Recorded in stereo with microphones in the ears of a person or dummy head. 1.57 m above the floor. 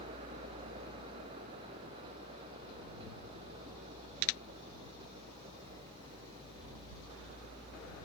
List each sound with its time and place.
0.0 s a vehicle: 20° left (ahead or behind)